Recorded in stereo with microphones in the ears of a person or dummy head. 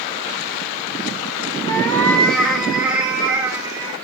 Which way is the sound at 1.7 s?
15° left (ahead or behind).